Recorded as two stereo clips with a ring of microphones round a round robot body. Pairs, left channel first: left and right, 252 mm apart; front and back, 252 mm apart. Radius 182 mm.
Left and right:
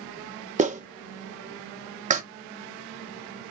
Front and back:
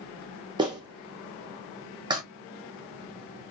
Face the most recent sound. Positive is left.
turn(degrees=-120)